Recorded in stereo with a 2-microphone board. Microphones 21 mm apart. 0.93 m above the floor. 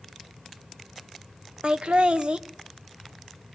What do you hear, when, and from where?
1.6 s laughter: 60° right (ahead or behind), 1.1 m